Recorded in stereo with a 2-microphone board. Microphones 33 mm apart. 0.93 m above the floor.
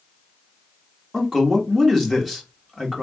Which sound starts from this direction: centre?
A man speaking, at 1.1 s.